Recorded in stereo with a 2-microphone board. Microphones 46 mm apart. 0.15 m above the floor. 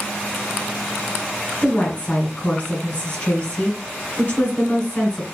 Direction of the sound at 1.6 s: 35° left (ahead or behind).